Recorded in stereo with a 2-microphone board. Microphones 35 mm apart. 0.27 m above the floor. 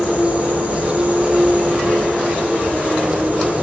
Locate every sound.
0.0 s an insect: 35° right (ahead or behind), 6 m